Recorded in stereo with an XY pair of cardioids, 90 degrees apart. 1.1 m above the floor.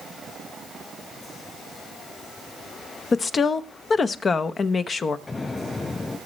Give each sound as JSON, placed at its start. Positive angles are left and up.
{"t": 3.1, "sound": "a woman speaking", "azimuth_deg": 45, "distance_m": 0.9}
{"t": 5.3, "sound": "an explosion", "azimuth_deg": 35, "distance_m": 5.5}